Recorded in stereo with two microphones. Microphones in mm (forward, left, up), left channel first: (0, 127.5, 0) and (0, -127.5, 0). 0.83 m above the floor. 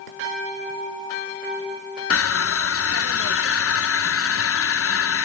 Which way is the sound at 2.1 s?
65° left (ahead or behind).